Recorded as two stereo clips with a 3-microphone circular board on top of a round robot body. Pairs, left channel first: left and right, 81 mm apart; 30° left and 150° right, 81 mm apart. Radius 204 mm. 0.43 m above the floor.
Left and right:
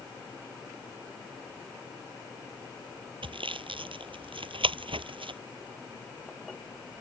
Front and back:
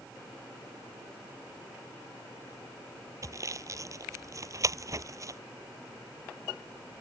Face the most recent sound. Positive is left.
turn(degrees=-100)